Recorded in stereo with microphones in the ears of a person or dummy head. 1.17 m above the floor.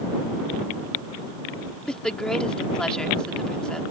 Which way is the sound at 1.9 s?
10° left (ahead or behind).